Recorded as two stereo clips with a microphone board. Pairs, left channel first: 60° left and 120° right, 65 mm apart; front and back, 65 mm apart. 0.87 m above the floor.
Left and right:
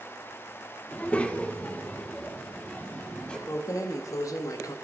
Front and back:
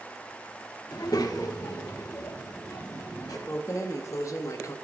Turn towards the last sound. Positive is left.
turn(degrees=30)